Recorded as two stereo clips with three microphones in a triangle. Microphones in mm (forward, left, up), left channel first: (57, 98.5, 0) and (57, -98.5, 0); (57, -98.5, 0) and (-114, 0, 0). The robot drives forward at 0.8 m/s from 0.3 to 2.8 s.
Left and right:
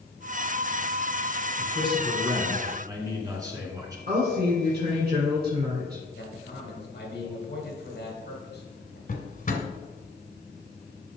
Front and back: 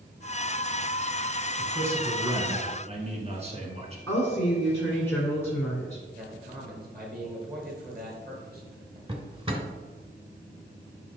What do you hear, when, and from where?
1.6 s a man speaking: 130° right, 1.3 m; by 4.0 s 160° right, 1.9 m
4.1 s a woman speaking: 105° right, 2.0 m
6.2 s a man speaking: 115° left, 3 m
9.1 s a drawer: 100° left, 1.1 m